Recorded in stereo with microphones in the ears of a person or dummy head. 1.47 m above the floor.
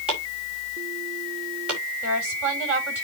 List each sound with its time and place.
0.1 s chopping: 5° right (ahead or behind), 5.5 m
2.0 s a woman speaking: 10° right (ahead or behind), 7.5 m